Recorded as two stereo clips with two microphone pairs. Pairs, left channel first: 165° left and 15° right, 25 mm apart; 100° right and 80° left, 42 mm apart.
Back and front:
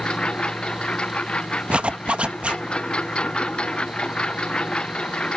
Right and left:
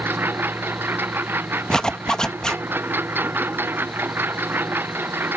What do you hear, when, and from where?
0.0 s a lawn mower: 115° left
1.7 s a zipper: 30° right